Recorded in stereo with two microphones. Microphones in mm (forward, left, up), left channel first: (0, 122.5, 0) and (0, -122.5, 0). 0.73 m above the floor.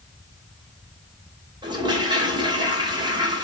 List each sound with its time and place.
1.6 s a toilet flushing: 15° right (ahead or behind), 2.5 m